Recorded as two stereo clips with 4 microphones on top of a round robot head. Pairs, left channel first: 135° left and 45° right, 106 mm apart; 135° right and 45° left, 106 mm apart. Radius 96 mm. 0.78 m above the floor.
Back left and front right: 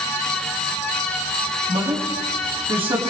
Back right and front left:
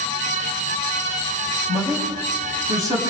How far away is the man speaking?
About 5.5 m.